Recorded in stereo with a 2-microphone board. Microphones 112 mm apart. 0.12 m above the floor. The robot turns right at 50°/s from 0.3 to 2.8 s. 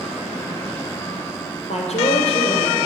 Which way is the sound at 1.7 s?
80° left.